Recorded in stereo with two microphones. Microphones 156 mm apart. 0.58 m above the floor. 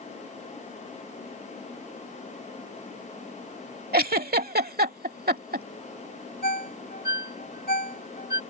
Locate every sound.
3.9 s a giggle: 75° right (ahead or behind)
6.4 s a ringtone: 75° left (ahead or behind)